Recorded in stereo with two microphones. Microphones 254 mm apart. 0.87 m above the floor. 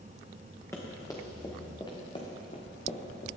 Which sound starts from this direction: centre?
Running footsteps, at 0.7 s.